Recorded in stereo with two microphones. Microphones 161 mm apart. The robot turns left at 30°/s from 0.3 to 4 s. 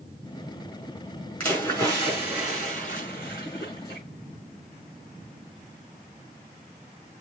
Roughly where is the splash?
Behind.